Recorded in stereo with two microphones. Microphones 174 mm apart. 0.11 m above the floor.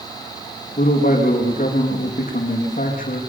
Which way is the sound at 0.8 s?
50° left (ahead or behind).